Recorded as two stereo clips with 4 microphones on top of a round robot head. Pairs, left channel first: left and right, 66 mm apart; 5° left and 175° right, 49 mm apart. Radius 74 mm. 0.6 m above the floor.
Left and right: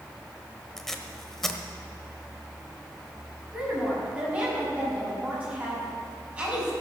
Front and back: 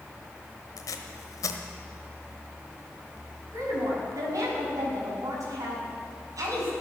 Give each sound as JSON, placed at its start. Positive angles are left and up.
{"t": 0.8, "sound": "tape being pulled", "azimuth_deg": 5, "distance_m": 1.3}
{"t": 3.5, "sound": "a woman speaking", "azimuth_deg": -160, "distance_m": 6.0}